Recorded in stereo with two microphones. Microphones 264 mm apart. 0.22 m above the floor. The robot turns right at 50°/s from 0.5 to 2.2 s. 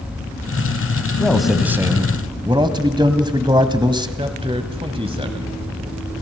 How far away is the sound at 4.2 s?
About 1.1 m.